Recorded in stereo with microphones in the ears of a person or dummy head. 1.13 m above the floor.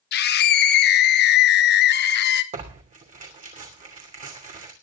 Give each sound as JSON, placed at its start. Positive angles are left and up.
{"t": 0.1, "sound": "a scream", "side_deg": 50, "distance_m": 0.9}
{"t": 2.5, "sound": "tearing paper", "side_deg": -35, "distance_m": 2.5}